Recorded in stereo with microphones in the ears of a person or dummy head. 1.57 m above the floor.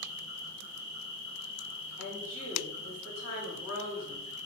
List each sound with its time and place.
0.0 s an insect: 85° left, 1.4 m
2.0 s a woman speaking: 75° left (ahead or behind), 1.5 m